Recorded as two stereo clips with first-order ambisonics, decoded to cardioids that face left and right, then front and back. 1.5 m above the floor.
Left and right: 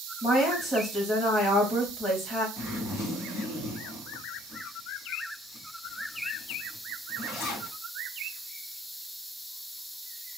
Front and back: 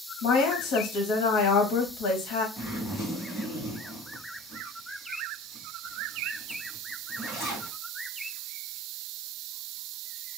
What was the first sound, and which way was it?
A woman speaking, 20° left.